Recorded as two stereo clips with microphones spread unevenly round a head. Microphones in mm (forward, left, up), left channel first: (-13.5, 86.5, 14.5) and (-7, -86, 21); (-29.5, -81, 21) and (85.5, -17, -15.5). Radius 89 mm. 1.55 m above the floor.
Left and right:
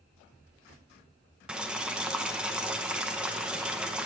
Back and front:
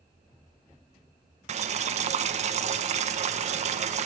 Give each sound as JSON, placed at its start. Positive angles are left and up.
{"t": 1.5, "sound": "boiling", "azimuth_deg": -5, "distance_m": 0.8}